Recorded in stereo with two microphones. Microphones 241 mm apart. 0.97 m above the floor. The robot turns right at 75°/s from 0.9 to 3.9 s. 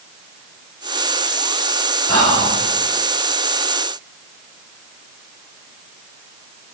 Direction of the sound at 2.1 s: 110° right.